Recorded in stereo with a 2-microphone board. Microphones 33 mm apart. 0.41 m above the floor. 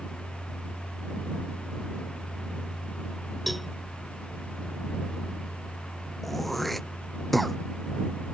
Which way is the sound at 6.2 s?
5° left (ahead or behind).